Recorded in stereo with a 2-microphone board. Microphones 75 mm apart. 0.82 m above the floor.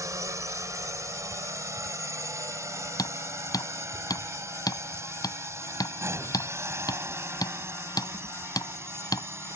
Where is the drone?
45° right (ahead or behind); by 9.6 s 35° right (ahead or behind).